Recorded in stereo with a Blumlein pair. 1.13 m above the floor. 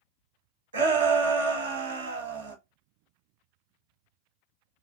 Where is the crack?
No crack in this recording.